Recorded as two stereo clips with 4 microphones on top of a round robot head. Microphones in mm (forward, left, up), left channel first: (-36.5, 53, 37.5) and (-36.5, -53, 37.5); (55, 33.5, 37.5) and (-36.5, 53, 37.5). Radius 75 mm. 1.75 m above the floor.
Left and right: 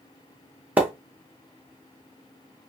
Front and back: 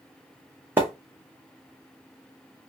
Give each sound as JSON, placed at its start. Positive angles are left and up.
{"t": 0.8, "sound": "a splash", "azimuth_deg": -145, "distance_m": 0.6}